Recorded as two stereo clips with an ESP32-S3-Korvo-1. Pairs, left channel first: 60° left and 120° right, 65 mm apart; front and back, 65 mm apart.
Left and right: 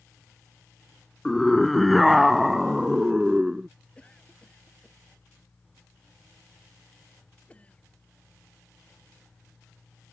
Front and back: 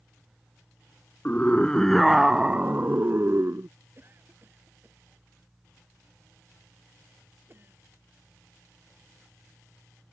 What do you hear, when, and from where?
1.2 s a scream: 20° right; by 3.7 s 165° left
4.0 s a cough: 130° left